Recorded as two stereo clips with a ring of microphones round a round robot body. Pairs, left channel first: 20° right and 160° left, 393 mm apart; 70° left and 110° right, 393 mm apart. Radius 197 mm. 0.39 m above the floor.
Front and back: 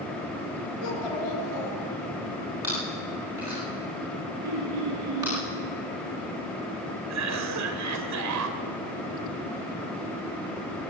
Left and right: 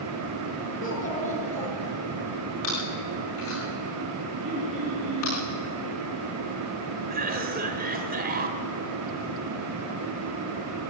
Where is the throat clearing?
Straight behind, 7.5 m.